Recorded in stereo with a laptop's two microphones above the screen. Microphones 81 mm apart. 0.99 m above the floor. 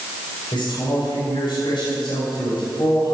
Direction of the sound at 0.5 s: 75° left (ahead or behind).